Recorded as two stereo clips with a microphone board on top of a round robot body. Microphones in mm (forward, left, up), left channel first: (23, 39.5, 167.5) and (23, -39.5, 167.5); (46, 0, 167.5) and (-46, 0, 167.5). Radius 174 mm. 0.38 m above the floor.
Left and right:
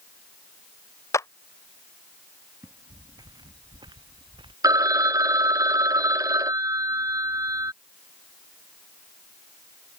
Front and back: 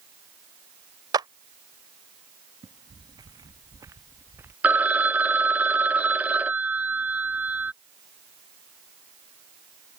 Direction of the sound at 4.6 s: 110° right.